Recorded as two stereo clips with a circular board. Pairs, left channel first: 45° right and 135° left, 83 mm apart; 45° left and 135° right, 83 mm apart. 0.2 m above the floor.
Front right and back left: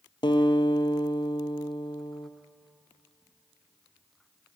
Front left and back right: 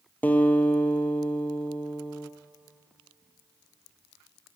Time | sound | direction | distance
0.2 | a guitar | 25° right | 0.8 m